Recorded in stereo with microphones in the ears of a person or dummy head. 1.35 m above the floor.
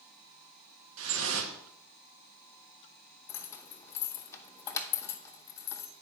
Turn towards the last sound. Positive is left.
turn(degrees=20)  # may be behind; listen again after turning